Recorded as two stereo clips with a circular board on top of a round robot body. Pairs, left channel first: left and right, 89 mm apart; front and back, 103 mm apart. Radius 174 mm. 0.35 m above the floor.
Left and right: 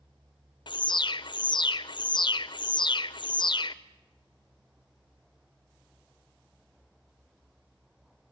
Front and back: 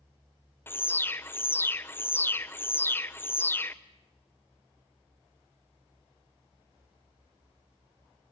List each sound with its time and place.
0.7 s an alarm: 65° left, 1.2 m